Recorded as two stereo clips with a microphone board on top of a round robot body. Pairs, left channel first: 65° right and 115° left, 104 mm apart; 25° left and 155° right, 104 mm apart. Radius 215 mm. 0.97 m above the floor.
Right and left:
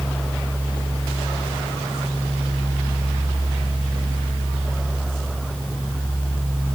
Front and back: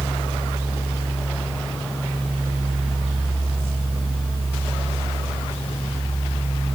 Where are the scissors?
No scissors in this recording.